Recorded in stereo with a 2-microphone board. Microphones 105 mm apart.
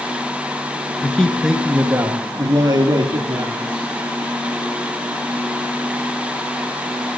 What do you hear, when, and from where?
1.0 s a man speaking: 15° left (ahead or behind), 1.3 m; by 3.9 s 45° right (ahead or behind), 3 m